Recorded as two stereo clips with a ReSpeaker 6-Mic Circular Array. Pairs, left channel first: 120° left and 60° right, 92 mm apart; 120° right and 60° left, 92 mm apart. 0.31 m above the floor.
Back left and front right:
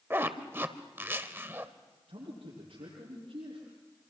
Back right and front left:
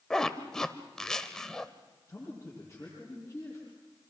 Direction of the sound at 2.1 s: 65° right.